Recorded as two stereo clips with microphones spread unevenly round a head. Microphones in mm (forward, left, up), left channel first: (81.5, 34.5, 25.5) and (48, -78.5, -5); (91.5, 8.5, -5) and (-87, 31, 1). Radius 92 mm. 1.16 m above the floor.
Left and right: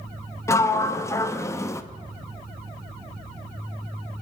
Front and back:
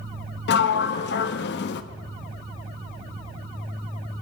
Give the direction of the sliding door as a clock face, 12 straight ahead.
12 o'clock.